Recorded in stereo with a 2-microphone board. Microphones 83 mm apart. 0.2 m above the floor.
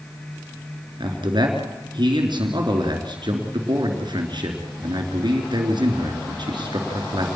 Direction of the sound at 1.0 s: 60° right (ahead or behind).